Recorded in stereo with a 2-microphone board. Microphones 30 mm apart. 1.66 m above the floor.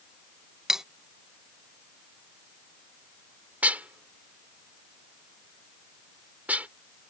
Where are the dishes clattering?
60° right (ahead or behind).